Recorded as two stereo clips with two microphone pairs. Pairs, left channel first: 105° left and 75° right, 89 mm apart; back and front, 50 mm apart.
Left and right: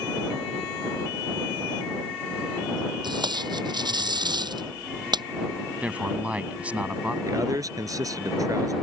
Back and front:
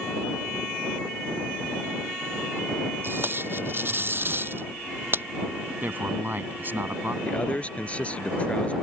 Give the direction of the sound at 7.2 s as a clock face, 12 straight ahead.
4 o'clock.